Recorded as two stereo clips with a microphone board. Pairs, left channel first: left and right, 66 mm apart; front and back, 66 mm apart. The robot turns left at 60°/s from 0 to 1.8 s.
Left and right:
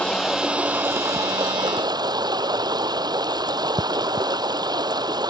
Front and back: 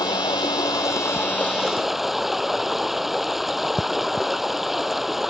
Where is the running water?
15° left; by 5.3 s 90° right.